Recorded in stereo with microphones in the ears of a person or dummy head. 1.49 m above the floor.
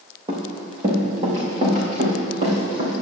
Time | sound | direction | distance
0.3 | running footsteps | 25° right (ahead or behind) | 3.5 m